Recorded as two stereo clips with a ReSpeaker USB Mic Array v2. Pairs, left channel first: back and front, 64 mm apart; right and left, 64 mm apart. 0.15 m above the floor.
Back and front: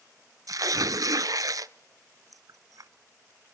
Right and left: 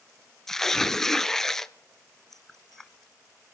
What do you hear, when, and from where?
0.5 s tearing paper: 5° right, 0.7 m